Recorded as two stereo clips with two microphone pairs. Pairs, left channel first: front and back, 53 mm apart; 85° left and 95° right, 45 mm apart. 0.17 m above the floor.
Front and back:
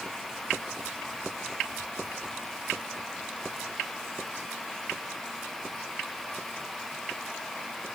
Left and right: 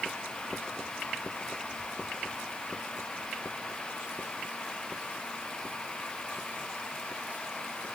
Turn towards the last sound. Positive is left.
No sound to turn to.